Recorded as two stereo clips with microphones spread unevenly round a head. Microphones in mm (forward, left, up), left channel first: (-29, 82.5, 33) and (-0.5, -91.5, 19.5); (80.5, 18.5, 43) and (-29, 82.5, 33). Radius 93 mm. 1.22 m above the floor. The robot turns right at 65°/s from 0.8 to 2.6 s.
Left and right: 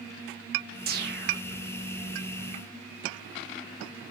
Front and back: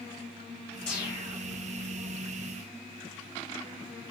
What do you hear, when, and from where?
0.9 s a whoosh: 115° right, 1.1 m; by 1.4 s 80° right, 1.1 m